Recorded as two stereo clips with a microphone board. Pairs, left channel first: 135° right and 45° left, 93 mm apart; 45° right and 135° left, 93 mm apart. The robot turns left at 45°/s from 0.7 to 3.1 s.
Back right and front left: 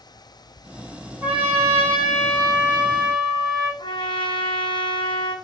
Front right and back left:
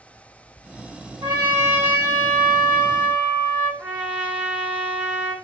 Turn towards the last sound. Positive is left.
turn(degrees=-155)